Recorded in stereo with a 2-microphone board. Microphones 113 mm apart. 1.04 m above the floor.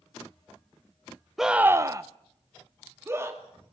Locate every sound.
1.4 s a scream: 5° right (ahead or behind), 0.7 m; by 3.4 s 20° right (ahead or behind), 2.5 m